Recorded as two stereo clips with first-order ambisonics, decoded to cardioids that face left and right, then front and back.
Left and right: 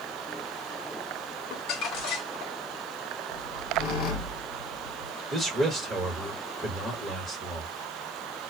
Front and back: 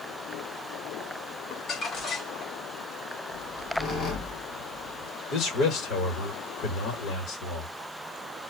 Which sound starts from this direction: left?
A squeak, at 3.3 s.